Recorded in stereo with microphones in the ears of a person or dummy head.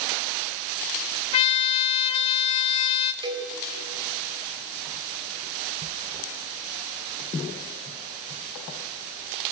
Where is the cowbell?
20° right (ahead or behind), 3 m.